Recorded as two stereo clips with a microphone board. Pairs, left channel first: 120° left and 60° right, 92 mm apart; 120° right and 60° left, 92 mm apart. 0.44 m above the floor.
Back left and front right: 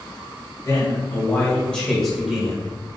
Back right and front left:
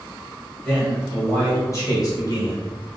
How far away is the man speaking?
About 1.9 m.